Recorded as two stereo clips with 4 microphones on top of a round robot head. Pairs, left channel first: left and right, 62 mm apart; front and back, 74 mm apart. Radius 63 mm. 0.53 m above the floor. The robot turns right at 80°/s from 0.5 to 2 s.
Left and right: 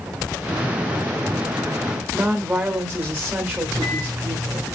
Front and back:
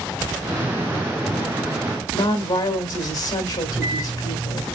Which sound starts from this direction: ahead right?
A woman speaking, at 2.1 s.